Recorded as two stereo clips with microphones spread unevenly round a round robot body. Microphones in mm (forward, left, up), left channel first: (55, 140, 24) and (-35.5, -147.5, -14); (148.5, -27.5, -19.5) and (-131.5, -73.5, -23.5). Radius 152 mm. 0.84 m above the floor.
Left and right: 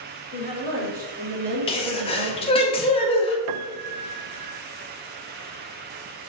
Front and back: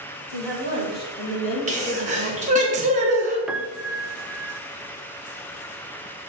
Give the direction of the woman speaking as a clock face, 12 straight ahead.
1 o'clock.